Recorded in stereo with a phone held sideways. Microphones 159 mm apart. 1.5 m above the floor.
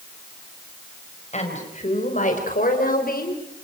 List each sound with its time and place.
1.3 s a woman speaking: 45° left (ahead or behind), 6 m; by 3.6 s 80° left, 4.5 m